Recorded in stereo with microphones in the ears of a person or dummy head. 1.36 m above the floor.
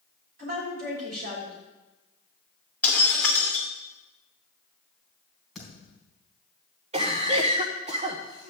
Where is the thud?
5° right (ahead or behind), 4.5 m.